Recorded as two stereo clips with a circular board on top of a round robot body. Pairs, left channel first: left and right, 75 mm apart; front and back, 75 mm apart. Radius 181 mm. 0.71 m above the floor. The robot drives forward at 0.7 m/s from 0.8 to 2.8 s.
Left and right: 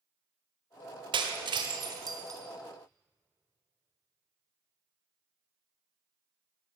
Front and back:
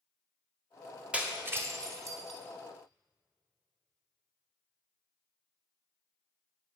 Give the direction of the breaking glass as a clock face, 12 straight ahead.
3 o'clock.